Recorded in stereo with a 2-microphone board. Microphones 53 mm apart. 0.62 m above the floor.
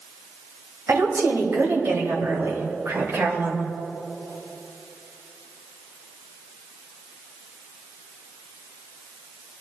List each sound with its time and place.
0.9 s a woman speaking: 75° right (ahead or behind), 3 m; by 3.7 s 65° right (ahead or behind), 2 m